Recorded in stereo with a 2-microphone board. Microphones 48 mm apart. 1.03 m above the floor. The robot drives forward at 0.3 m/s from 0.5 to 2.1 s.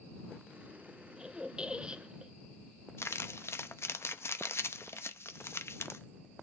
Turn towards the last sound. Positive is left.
turn(degrees=70)  # may be behind; listen again after turning